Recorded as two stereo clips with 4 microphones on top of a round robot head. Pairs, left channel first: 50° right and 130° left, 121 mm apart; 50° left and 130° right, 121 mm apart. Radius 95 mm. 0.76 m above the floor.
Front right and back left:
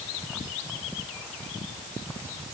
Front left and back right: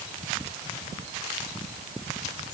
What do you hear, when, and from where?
Only background noise.